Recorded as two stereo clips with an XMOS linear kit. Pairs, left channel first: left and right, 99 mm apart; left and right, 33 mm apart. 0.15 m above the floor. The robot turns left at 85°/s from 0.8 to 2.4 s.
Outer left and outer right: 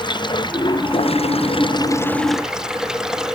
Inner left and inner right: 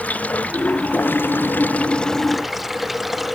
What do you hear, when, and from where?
0.0 s running water: 130° left; by 3.4 s 5° right